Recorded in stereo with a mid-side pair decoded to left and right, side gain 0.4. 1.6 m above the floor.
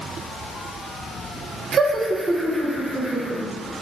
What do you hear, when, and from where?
1.7 s laughter: 60° right, 1.2 m; by 3.4 s 15° right, 3.5 m